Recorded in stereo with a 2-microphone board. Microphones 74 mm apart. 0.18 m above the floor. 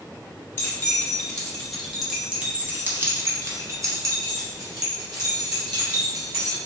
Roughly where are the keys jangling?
Left.